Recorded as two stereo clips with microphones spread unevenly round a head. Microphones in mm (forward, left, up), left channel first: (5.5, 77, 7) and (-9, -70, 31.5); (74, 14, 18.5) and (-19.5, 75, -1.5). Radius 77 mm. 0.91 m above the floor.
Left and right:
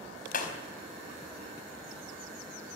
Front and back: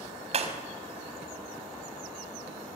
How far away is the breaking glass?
About 4.5 m.